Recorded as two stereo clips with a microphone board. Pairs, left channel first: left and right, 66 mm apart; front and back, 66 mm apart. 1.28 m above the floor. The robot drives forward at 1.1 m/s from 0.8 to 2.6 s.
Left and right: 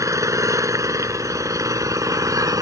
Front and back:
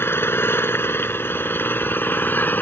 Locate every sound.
0.0 s an engine running: 55° right; by 2.6 s 60° right